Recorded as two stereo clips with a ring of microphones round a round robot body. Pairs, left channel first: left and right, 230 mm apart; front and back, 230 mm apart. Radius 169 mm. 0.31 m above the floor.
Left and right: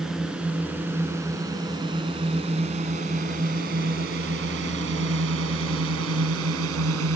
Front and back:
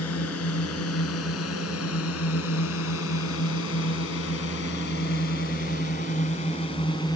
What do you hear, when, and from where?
0.0 s a drone: straight ahead; by 7.2 s 75° right